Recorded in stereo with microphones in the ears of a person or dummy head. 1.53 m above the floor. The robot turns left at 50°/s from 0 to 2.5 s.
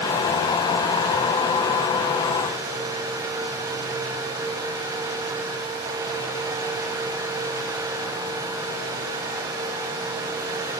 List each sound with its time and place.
Only background noise.